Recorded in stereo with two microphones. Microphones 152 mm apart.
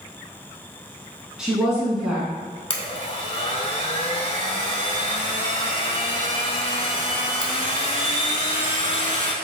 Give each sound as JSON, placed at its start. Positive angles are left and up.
{"t": 1.4, "sound": "a woman speaking", "side_deg": -5, "distance_m": 1.4}
{"t": 2.7, "sound": "a blender", "side_deg": 40, "distance_m": 0.6}